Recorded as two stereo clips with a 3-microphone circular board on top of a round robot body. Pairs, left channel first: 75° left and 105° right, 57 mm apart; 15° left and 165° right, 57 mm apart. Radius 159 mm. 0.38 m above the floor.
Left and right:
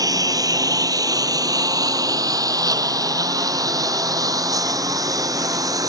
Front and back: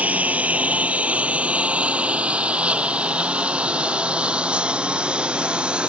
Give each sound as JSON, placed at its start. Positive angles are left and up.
{"t": 0.0, "sound": "a lawn mower", "azimuth_deg": -100}